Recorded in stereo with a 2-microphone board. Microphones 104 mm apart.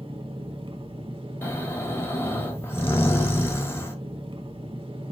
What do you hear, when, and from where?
0.0 s an engine running: 55° right (ahead or behind), 0.7 m
1.4 s snoring: 25° left (ahead or behind), 1.1 m